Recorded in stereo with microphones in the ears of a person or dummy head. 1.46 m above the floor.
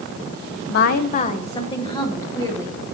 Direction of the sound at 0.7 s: 65° left (ahead or behind).